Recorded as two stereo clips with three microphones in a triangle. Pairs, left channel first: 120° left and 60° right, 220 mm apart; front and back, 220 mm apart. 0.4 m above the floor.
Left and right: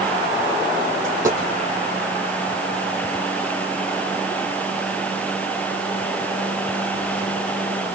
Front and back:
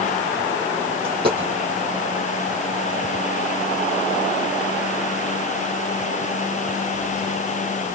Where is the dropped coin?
135° right, 5.5 m.